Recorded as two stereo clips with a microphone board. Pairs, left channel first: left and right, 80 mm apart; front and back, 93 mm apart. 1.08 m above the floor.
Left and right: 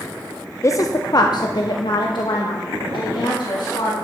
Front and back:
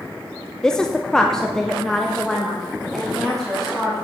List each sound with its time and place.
0.6 s a woman speaking: 75° left, 0.5 m; by 4.0 s 85° left, 2 m